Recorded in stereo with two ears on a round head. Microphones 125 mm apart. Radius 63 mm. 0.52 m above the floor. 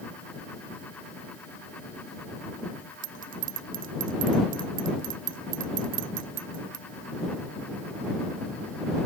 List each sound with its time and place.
3.0 s a bell: 65° right (ahead or behind)